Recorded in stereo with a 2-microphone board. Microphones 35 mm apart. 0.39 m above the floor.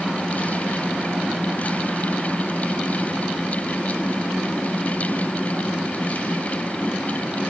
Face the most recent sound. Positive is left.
No sound to turn to.